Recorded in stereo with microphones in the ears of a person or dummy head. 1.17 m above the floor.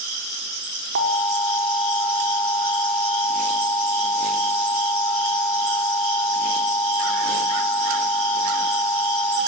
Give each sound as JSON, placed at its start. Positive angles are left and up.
{"t": 0.9, "sound": "an alarm", "side_deg": -65, "distance_m": 5.5}